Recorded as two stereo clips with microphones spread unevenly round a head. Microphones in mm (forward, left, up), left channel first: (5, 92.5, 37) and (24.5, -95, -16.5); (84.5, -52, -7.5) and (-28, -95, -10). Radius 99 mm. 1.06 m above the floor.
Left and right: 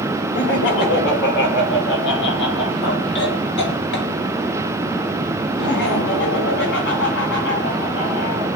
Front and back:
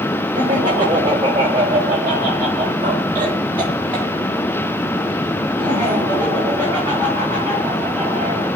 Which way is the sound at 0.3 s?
130° left.